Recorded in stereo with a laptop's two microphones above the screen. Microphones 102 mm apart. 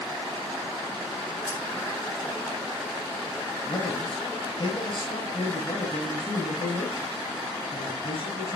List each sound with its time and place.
1.5 s keys jangling: 35° left (ahead or behind), 3.5 m
3.7 s a man speaking: 60° left (ahead or behind), 5.5 m